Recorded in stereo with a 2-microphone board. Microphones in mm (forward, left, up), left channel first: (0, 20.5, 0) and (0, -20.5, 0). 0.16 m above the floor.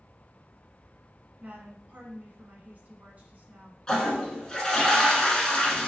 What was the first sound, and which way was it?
A woman speaking, 40° right (ahead or behind).